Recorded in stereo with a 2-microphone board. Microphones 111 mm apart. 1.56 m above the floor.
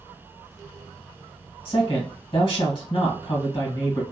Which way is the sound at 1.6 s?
55° left (ahead or behind).